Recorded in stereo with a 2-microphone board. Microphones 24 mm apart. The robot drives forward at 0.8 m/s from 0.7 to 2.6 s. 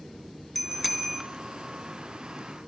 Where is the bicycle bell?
5° left (ahead or behind), 2.5 m.